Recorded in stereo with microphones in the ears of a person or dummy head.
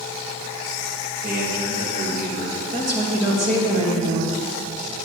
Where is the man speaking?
45° right (ahead or behind), 2 m.